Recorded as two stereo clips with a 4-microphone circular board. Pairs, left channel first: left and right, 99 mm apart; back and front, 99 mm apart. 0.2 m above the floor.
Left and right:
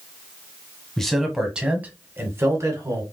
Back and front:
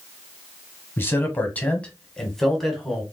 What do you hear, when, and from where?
1.0 s a man speaking: 170° left, 1.2 m; by 3.0 s 85° right, 1.4 m